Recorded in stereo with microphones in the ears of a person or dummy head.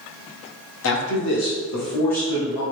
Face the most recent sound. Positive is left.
turn(degrees=35)  # may be behind; listen again after turning